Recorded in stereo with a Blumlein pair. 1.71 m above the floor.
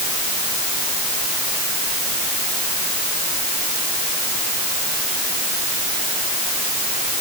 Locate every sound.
Only background noise.